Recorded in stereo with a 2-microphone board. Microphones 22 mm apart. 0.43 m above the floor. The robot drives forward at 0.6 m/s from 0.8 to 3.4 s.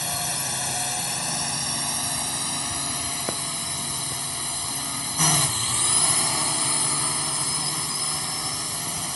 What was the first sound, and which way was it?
A drone, 5° left (ahead or behind).